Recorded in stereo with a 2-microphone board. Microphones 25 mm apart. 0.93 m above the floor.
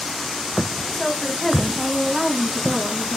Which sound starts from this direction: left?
A woman speaking, at 0.9 s.